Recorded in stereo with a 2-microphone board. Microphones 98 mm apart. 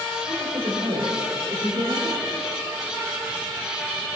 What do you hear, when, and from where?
0.2 s a woman speaking: 55° right (ahead or behind), 4.5 m; by 2.3 s 75° right (ahead or behind), 3 m